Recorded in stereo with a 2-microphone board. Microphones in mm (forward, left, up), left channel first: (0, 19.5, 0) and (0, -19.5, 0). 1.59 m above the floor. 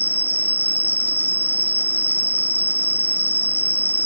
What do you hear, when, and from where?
0.0 s an insect: 50° right (ahead or behind)